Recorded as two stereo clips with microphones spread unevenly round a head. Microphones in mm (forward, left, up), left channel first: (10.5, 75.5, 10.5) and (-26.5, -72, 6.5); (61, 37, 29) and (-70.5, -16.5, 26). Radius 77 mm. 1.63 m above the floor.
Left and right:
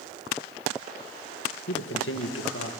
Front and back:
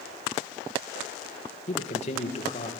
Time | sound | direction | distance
1.7 | a man speaking | 65° left | 2 m